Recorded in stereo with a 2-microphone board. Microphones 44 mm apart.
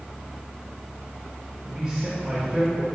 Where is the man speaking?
5° right (ahead or behind), 1.9 m.